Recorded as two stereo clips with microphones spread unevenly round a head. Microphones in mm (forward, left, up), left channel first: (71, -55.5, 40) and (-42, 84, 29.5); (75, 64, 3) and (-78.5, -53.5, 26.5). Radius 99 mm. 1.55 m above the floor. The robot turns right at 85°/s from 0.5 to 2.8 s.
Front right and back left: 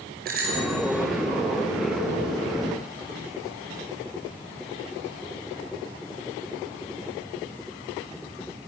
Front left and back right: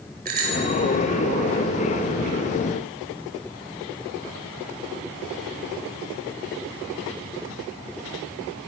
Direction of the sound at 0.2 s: 175° left.